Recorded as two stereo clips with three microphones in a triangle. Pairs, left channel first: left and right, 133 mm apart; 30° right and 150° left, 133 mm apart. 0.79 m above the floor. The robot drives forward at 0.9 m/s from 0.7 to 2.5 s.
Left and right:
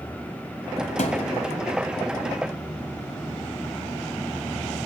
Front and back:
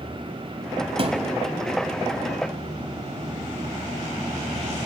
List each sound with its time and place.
1.0 s a thud: 110° left, 1.6 m; by 1.3 s 120° left, 1.7 m